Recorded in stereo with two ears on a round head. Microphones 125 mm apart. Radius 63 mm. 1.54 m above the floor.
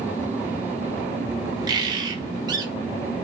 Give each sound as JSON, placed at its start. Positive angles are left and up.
{"t": 1.7, "sound": "a bird", "side_deg": -30, "distance_m": 0.7}